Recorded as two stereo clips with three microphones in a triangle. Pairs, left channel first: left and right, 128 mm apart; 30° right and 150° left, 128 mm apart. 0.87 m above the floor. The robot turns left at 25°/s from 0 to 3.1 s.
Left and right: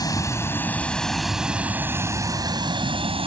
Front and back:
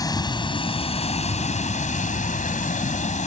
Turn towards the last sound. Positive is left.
turn(degrees=-45)